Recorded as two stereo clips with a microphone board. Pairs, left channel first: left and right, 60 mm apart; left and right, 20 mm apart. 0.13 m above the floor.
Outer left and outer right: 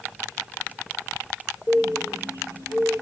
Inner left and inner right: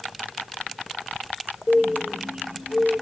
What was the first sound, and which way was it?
A bird, 50° right (ahead or behind).